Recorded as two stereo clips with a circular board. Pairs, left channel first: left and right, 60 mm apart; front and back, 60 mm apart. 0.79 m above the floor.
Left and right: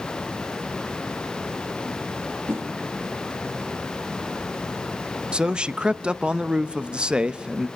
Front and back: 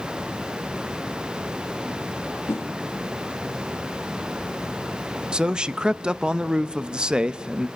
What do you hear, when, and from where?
2.5 s a whoosh: 45° right, 1.1 m
5.3 s a man speaking: 130° right, 0.5 m